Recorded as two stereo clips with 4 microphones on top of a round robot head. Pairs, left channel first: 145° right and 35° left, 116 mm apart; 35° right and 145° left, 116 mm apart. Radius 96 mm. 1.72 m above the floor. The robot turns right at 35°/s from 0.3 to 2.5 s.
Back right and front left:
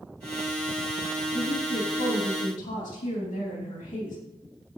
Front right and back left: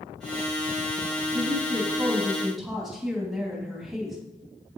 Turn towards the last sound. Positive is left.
turn(degrees=-130)